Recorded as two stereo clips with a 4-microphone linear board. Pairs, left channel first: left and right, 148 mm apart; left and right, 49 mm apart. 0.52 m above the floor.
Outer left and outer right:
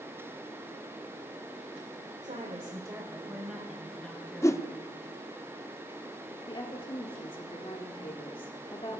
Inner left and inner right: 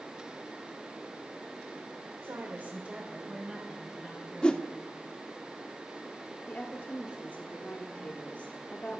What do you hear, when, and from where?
2.2 s a woman speaking: 55° right (ahead or behind), 1.3 m; by 4.8 s 10° left (ahead or behind), 4 m
4.4 s a whoosh: 20° left (ahead or behind), 0.6 m
6.5 s a woman speaking: 35° left (ahead or behind), 1.3 m